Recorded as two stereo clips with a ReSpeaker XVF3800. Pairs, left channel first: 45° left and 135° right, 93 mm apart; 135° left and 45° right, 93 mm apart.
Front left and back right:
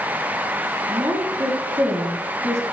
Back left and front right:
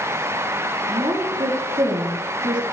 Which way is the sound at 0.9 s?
80° right.